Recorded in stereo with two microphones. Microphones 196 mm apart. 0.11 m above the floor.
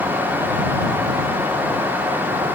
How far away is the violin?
No violin in this recording.